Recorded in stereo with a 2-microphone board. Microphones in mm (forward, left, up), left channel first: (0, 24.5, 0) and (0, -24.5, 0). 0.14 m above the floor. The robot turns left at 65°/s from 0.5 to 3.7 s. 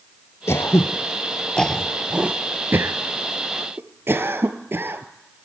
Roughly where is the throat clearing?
Left.